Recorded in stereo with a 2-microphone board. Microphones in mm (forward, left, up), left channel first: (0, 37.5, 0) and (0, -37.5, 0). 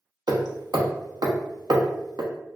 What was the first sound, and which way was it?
Hammering, 60° right (ahead or behind).